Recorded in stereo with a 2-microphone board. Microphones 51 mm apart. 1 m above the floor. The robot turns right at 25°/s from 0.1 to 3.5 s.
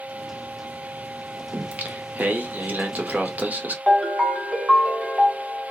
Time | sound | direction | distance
1.5 | singing | 120° right | 0.7 m
3.9 | a ringtone | 5° right (ahead or behind) | 1.0 m